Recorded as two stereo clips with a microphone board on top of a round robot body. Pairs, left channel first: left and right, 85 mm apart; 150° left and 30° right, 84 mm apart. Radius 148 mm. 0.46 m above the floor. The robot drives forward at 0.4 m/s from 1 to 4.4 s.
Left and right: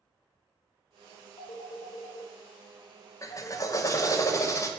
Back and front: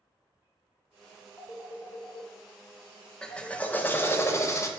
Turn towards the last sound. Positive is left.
turn(degrees=115)